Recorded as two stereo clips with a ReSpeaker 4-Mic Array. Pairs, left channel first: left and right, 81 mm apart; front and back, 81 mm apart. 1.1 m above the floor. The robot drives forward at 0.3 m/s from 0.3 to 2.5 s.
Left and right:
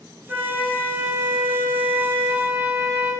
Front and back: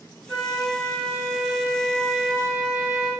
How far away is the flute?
About 1.1 m.